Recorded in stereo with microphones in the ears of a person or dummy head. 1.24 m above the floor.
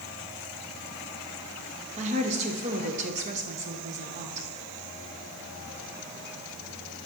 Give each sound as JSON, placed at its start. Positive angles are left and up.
{"t": 2.0, "sound": "a woman speaking", "side_deg": -35, "distance_m": 1.1}